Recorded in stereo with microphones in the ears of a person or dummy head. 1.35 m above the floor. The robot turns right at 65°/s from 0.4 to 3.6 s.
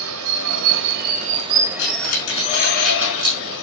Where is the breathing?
65° left (ahead or behind), 5 m; by 3.4 s 35° right (ahead or behind), 5 m.